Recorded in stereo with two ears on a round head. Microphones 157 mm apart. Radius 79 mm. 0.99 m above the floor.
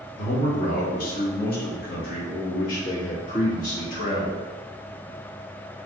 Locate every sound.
0.2 s a man speaking: 45° left (ahead or behind), 1.2 m